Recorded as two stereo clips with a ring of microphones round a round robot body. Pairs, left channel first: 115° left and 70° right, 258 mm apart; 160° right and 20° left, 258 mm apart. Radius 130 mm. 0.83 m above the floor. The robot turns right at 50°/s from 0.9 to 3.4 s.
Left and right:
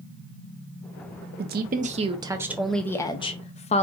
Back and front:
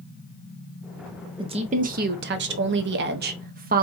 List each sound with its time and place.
1.4 s a woman speaking: 40° right, 0.5 m; by 3.8 s 60° left, 0.5 m